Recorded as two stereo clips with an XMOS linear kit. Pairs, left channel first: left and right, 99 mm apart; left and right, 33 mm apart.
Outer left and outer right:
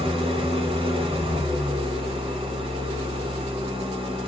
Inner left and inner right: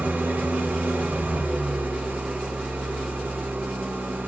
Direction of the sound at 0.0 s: 60° right (ahead or behind).